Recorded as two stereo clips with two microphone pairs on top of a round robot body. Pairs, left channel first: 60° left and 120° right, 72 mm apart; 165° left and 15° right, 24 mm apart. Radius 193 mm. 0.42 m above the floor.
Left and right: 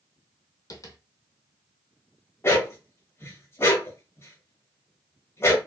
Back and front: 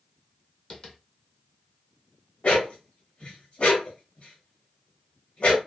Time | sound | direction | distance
0.7 | tapping | 100° left | 0.7 m
2.4 | a dog barking | 115° left | 0.8 m